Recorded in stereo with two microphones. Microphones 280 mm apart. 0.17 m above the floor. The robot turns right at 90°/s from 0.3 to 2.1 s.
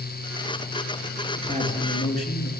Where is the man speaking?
5° left, 3 m; by 2.5 s 70° left, 3 m.